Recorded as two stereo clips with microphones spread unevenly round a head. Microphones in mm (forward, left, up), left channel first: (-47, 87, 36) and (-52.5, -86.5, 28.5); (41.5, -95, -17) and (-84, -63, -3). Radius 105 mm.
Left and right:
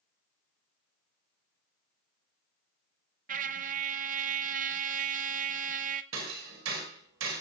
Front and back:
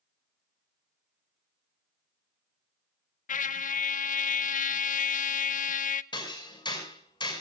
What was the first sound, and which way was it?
A trumpet, 40° right.